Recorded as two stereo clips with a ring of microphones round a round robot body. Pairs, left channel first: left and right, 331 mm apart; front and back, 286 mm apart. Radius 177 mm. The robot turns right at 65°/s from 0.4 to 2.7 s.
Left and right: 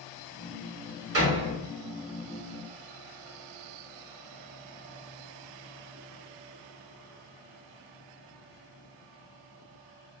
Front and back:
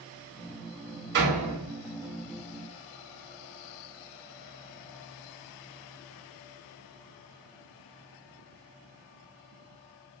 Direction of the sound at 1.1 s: 135° right.